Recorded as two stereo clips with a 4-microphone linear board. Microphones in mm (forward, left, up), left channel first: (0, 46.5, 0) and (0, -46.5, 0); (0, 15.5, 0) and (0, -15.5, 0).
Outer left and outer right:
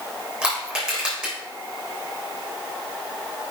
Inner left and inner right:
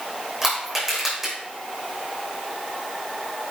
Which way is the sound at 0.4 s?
10° right (ahead or behind).